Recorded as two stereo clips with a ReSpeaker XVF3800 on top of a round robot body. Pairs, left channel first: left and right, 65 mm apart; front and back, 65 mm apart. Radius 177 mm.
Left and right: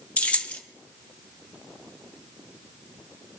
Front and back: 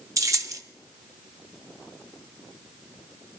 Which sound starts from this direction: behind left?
Keys jangling, at 0.2 s.